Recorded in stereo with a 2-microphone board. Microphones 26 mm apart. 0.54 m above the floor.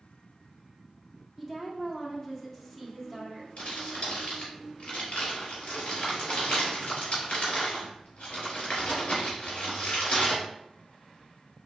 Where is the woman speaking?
15° left (ahead or behind), 1.0 m.